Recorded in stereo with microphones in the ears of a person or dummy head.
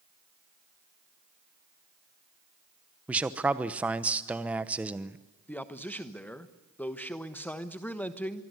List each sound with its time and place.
3.1 s a man speaking: 10° right (ahead or behind), 0.9 m
5.5 s a man speaking: 10° left (ahead or behind), 1.3 m